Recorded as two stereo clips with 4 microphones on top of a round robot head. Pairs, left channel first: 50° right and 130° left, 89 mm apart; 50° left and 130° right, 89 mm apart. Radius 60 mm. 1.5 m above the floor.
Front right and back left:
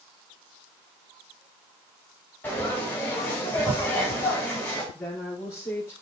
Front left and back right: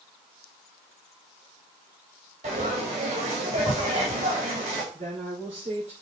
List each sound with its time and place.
2.4 s frying: 120° right, 4 m
4.9 s a woman speaking: 115° right, 4 m